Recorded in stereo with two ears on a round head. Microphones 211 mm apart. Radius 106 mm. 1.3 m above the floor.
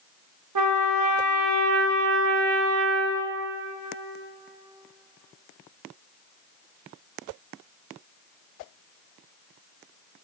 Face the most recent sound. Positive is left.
turn(degrees=-85)